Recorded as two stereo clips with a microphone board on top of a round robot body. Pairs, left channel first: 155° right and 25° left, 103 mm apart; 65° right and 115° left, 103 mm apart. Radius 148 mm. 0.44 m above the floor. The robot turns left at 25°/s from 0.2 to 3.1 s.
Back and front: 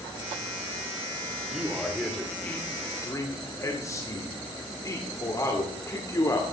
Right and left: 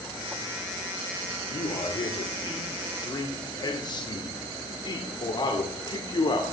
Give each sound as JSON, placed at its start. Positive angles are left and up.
{"t": 1.5, "sound": "a man speaking", "azimuth_deg": -60, "distance_m": 2.0}